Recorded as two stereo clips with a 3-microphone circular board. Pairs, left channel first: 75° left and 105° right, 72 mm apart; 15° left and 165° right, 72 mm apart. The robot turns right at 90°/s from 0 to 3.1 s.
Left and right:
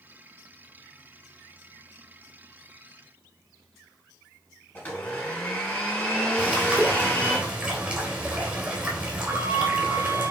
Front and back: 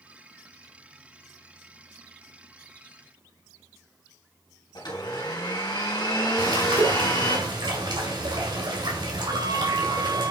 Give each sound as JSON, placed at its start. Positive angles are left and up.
{"t": 4.8, "sound": "a blender", "azimuth_deg": 10, "distance_m": 4.0}
{"t": 6.4, "sound": "a bird", "azimuth_deg": 180, "distance_m": 3.0}
{"t": 9.3, "sound": "a flute", "azimuth_deg": -150, "distance_m": 0.8}